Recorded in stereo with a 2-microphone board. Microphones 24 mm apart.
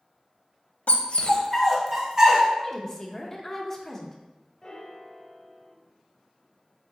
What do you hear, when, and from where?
0.9 s a dog barking: 75° left (ahead or behind), 0.6 m; by 2.5 s 30° right (ahead or behind), 1.3 m
2.6 s a woman speaking: 20° left (ahead or behind), 0.7 m
4.6 s a piano: 35° left (ahead or behind), 0.5 m